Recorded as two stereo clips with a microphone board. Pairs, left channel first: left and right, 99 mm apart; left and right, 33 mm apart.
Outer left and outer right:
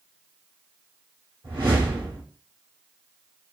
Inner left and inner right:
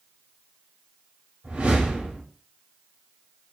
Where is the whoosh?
50° right (ahead or behind), 2.0 m.